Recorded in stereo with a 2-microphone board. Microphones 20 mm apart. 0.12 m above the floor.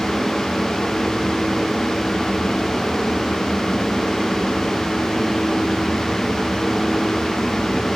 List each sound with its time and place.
Only background noise.